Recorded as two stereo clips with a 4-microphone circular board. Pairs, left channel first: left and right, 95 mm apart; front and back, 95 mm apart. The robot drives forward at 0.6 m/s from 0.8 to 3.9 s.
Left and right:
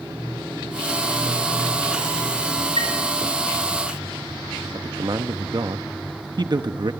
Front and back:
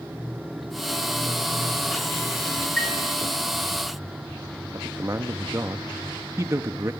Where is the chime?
80° right, 3.5 m; by 2.9 s 85° right, 3.5 m.